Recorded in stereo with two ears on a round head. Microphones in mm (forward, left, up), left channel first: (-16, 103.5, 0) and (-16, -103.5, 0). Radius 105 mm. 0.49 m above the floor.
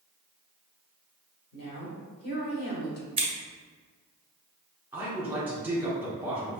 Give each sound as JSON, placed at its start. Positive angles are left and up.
{"t": 1.5, "sound": "a woman speaking", "side_deg": 45, "distance_m": 1.6}
{"t": 3.2, "sound": "scissors", "side_deg": -20, "distance_m": 1.4}
{"t": 4.9, "sound": "a man speaking", "side_deg": -10, "distance_m": 1.5}